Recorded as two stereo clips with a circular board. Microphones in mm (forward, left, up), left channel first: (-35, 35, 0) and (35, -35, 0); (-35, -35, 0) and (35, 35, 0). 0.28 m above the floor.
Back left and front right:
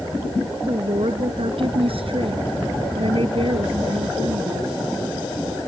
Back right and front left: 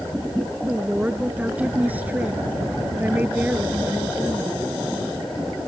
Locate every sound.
0.7 s a woman speaking: 30° right; by 4.8 s 25° right